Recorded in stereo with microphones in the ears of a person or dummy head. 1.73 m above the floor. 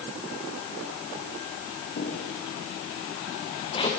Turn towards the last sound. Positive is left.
turn(degrees=25)  # may be behind; listen again after turning